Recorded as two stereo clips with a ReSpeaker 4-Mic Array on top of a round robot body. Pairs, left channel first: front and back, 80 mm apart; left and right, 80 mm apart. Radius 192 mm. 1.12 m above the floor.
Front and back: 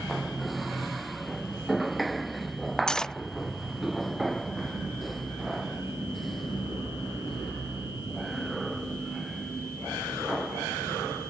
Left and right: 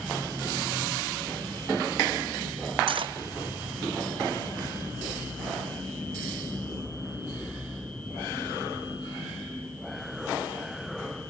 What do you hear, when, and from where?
2.9 s cutlery clinking: 80° right